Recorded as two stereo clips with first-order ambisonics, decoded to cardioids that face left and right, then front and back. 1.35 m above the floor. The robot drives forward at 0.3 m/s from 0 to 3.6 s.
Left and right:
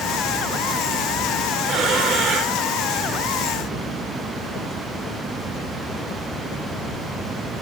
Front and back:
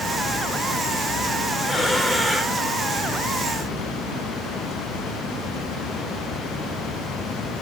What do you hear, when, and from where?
1.7 s breathing: 75° right, 1.2 m; by 2.6 s 95° right, 1.2 m